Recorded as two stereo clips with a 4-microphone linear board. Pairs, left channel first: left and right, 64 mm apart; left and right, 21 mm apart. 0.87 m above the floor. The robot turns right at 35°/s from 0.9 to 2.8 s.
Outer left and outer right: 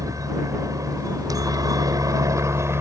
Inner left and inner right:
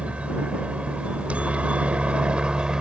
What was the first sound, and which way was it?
A helicopter, 110° right.